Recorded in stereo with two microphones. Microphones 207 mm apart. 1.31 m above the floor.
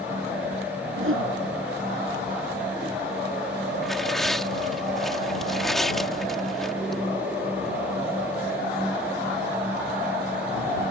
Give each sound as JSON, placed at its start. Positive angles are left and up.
{"t": 1.0, "sound": "a whoosh", "side_deg": -85}
{"t": 3.8, "sound": "tearing paper", "side_deg": 0}